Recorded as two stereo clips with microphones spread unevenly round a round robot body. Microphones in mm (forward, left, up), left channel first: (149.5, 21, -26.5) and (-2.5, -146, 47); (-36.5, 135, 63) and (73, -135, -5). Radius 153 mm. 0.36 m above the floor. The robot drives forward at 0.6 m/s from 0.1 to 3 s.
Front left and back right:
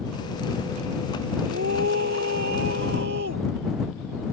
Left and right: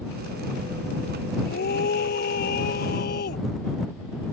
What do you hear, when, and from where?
1.4 s a scream: 170° left